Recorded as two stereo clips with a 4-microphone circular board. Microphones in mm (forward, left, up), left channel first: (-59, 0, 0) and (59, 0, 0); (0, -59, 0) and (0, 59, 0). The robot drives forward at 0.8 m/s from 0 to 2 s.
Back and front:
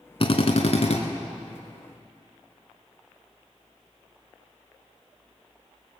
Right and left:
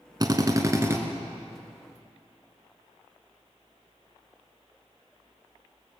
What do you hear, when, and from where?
0.2 s a drill: 140° left, 1.1 m; by 1.0 s 155° left, 1.6 m